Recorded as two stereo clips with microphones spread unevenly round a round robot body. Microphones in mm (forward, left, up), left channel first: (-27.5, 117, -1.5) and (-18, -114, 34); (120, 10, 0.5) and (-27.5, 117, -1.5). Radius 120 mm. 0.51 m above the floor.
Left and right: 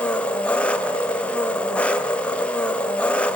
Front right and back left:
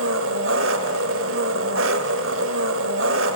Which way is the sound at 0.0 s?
175° left.